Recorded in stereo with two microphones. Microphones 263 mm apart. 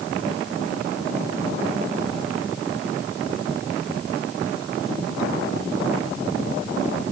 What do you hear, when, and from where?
Only background noise.